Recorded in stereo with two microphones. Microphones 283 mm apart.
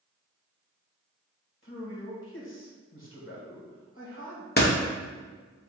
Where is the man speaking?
45° left (ahead or behind), 1.4 m.